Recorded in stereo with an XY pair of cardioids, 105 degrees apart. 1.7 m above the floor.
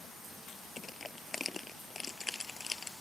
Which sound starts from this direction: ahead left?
Crushing, at 0.8 s.